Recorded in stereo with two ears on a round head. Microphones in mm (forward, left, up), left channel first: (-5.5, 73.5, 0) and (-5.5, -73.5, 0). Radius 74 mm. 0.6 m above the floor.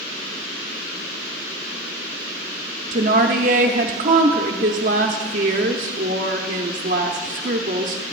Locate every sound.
2.9 s a woman speaking: 50° right (ahead or behind), 0.9 m